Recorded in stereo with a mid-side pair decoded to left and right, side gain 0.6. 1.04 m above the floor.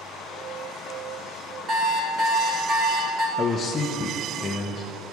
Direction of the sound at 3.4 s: 30° left.